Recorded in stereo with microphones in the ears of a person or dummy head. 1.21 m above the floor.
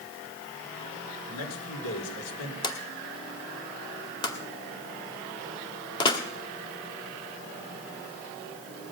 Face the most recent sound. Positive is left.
turn(degrees=25)  # may be behind; listen again after turning